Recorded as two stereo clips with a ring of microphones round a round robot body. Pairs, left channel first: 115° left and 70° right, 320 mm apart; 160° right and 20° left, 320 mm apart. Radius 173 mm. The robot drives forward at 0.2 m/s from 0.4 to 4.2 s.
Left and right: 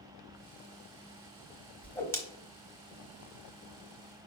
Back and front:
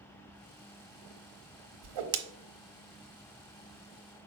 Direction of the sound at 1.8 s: 25° left.